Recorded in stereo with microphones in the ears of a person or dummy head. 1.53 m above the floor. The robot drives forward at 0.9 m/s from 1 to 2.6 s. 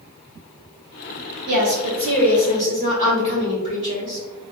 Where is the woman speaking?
45° right (ahead or behind), 1.7 m; by 4.2 s 30° right (ahead or behind), 2.5 m.